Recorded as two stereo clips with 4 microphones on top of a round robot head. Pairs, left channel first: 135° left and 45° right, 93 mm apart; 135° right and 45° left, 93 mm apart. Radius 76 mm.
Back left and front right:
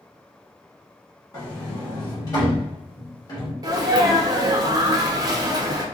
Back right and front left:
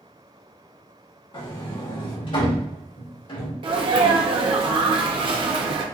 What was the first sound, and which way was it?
A sliding door, 170° right.